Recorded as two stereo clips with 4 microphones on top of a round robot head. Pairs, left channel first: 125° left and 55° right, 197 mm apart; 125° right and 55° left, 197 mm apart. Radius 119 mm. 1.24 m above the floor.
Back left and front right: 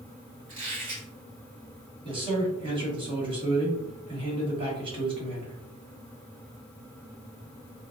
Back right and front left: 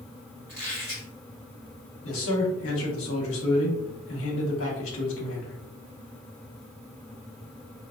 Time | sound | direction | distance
0.5 | a squeak | 35° right | 1.9 m
2.0 | a man speaking | 120° right | 1.0 m